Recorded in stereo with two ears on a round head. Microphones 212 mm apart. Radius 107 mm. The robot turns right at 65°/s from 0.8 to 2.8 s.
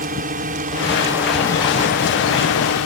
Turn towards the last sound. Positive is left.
turn(degrees=70)  # may be behind; listen again after turning